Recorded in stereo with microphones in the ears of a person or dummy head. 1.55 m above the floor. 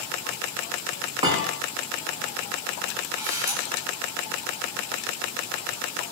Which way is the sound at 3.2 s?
10° right (ahead or behind).